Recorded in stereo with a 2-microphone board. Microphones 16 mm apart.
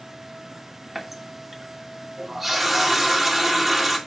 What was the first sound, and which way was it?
A running tap, 15° right (ahead or behind).